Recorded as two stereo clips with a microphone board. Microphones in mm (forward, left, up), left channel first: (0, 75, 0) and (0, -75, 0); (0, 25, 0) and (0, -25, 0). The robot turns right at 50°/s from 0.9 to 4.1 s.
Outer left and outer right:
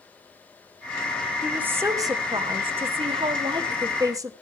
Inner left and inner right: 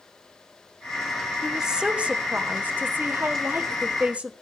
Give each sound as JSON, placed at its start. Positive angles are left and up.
{"t": 1.4, "sound": "a woman speaking", "azimuth_deg": -170, "distance_m": 1.5}